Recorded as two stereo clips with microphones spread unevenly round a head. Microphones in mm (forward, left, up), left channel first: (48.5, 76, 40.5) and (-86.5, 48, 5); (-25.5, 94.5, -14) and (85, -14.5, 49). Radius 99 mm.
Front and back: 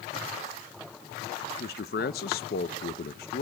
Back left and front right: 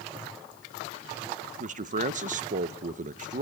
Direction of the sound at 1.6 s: 10° right.